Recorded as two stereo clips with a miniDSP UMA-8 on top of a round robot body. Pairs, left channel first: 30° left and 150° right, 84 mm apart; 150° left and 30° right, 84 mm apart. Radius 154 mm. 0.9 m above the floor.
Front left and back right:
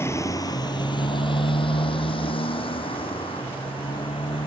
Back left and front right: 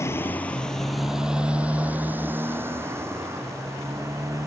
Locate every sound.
0.0 s a motorcycle: 90° left; by 4.5 s 25° left